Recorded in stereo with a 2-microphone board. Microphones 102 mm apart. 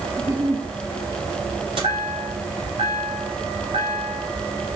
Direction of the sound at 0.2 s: 30° right (ahead or behind).